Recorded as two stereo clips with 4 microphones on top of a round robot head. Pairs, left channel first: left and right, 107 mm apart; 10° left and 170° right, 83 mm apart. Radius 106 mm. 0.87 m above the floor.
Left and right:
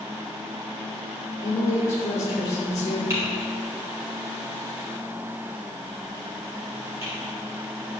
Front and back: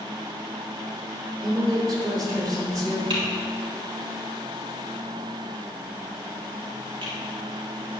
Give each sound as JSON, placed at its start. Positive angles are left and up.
{"t": 1.4, "sound": "a woman speaking", "azimuth_deg": 155, "distance_m": 3.0}
{"t": 3.1, "sound": "typing on a keyboard", "azimuth_deg": -155, "distance_m": 2.5}